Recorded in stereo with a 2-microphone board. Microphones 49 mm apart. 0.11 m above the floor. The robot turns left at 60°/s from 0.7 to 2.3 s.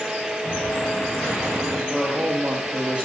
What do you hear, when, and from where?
0.4 s an explosion: 35° left, 4.5 m; by 1.8 s 35° right, 4.5 m
1.9 s a man speaking: 5° right (ahead or behind), 3 m; by 3.0 s 25° right (ahead or behind), 3 m